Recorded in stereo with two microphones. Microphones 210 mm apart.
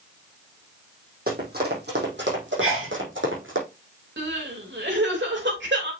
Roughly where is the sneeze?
Right.